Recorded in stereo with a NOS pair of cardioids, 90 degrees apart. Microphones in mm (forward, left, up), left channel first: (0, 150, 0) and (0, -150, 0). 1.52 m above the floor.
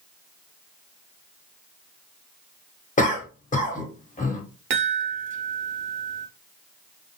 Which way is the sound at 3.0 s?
25° left.